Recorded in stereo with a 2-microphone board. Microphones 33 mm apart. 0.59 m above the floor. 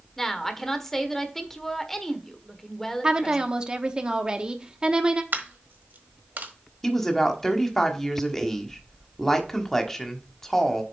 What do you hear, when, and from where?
0.2 s a woman speaking: 10° left (ahead or behind), 1.3 m
3.0 s a woman speaking: 25° right (ahead or behind), 0.9 m
5.3 s a dropped coin: 75° right (ahead or behind), 1.3 m
6.8 s a woman speaking: 10° left (ahead or behind), 1.2 m